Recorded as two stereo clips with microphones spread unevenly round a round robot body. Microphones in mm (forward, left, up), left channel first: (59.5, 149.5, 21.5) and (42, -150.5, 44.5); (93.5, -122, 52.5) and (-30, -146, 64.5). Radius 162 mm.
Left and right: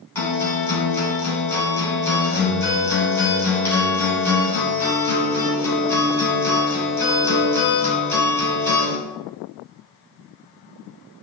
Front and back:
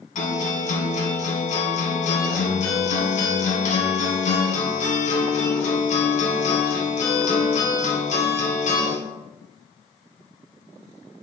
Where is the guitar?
5° left, 3.5 m.